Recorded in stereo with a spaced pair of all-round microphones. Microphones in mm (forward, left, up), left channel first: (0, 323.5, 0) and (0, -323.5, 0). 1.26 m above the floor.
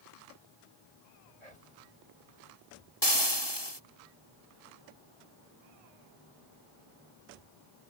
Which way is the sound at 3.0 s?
40° left (ahead or behind).